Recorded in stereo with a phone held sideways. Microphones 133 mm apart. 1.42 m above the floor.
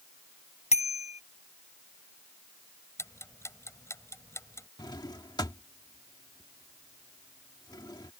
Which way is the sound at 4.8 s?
30° left (ahead or behind).